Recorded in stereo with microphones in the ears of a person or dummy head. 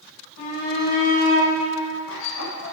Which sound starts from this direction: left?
A shout, at 0.4 s.